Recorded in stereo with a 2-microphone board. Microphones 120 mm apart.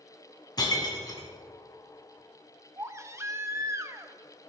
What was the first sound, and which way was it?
Breaking glass, 35° left (ahead or behind).